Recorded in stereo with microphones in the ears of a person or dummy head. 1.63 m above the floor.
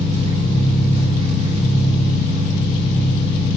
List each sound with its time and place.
0.0 s an engine running: 35° right (ahead or behind), 5 m